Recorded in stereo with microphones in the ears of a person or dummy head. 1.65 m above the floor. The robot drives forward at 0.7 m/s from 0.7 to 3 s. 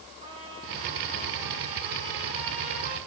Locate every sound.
0.2 s a trumpet: 35° right (ahead or behind), 7.5 m; by 3.0 s 40° right (ahead or behind), 6 m